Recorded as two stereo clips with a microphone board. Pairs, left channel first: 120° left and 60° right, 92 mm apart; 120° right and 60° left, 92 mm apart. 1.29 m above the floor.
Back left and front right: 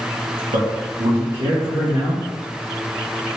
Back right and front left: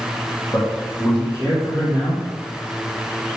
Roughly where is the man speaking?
Ahead right.